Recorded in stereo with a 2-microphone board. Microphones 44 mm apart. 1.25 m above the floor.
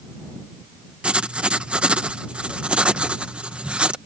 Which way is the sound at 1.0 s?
25° right (ahead or behind).